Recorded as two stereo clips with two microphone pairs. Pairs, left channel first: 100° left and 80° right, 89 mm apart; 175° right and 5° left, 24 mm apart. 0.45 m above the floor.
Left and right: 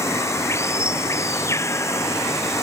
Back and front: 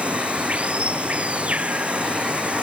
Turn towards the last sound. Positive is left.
turn(degrees=40)